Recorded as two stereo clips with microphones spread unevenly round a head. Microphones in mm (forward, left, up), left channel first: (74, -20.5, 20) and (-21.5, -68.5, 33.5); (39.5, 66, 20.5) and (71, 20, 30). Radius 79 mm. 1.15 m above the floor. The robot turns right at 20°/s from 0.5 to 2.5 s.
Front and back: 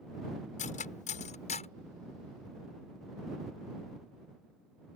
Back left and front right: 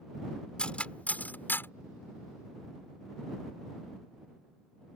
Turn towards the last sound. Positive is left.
turn(degrees=90)